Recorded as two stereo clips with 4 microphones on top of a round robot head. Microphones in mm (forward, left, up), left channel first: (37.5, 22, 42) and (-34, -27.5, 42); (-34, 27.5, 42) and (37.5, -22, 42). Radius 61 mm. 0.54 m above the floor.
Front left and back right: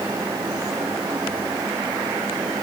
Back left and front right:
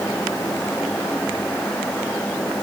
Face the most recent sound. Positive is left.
No sound to turn to.